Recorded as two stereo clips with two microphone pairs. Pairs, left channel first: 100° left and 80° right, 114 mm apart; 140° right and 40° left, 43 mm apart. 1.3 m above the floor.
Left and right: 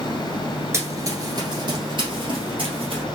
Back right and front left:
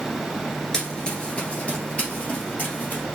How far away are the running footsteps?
About 1.3 m.